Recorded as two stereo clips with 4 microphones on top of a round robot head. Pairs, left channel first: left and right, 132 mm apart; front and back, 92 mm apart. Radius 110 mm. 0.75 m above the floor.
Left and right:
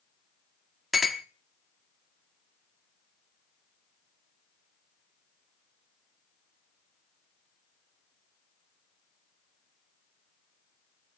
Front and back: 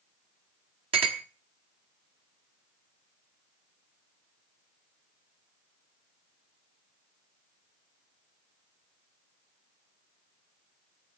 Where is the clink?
Straight behind, 1.1 m.